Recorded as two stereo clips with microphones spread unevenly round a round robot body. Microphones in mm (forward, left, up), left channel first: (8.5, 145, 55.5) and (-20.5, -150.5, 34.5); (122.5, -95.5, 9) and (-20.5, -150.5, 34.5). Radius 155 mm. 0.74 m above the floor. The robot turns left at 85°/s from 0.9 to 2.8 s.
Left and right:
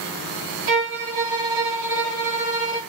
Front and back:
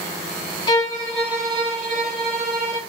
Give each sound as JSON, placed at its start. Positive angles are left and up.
{"t": 0.7, "sound": "a violin", "azimuth_deg": -45, "distance_m": 2.0}